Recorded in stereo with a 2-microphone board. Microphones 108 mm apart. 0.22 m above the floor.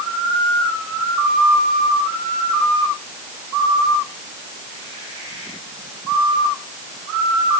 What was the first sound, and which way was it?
Only background noise.